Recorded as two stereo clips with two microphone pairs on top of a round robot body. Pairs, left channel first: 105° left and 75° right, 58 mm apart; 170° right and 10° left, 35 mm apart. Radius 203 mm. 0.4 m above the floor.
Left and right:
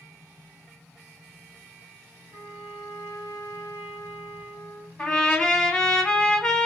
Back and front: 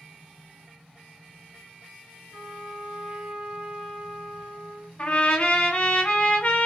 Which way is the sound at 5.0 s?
165° left.